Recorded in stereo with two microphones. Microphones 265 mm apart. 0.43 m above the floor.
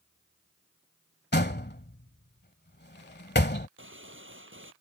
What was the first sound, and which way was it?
A door slam, 40° left (ahead or behind).